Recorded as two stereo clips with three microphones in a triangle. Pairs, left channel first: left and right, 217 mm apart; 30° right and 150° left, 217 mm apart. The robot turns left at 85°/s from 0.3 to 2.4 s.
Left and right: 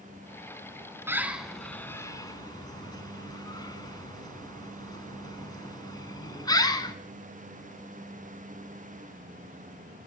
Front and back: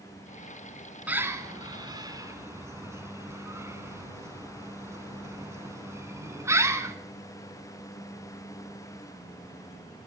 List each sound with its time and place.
1.1 s a bird: 140° right, 1.3 m; by 7.0 s 105° left, 1.3 m